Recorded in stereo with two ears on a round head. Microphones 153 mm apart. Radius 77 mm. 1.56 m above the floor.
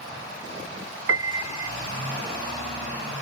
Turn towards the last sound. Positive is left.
turn(degrees=-85)